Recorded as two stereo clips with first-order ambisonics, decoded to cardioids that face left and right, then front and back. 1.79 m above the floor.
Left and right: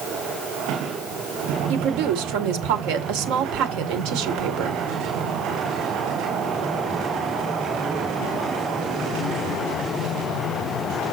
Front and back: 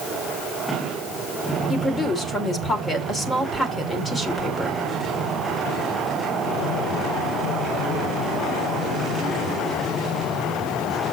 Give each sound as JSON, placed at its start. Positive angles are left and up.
{"t": 1.7, "sound": "a woman speaking", "azimuth_deg": -75, "distance_m": 1.6}